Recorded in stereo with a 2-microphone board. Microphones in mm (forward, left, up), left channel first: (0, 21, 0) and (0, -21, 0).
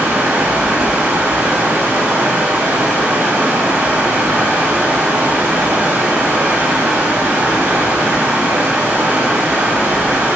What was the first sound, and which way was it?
Running water, 80° right.